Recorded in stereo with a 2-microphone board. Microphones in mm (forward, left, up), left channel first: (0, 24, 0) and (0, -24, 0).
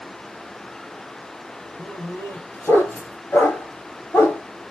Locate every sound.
1.8 s a dog barking: 60° left (ahead or behind), 3 m